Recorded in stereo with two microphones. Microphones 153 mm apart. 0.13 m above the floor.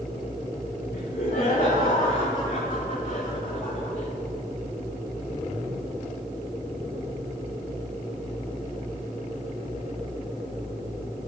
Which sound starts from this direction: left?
Laughter, at 0.9 s.